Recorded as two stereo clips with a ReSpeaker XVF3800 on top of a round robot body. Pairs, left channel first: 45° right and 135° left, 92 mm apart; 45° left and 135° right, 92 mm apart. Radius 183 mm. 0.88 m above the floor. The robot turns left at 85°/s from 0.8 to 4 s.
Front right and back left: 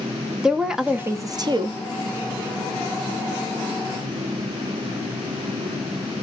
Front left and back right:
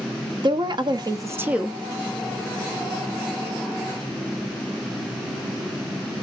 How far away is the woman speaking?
About 0.8 m.